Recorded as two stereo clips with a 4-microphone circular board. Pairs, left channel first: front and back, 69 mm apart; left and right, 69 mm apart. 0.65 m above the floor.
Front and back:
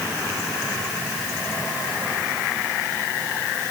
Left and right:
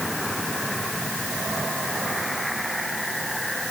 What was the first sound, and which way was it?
Only background noise.